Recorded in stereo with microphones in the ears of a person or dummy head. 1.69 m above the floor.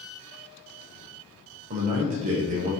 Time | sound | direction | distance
1.7 | a man speaking | 40° right (ahead or behind) | 0.8 m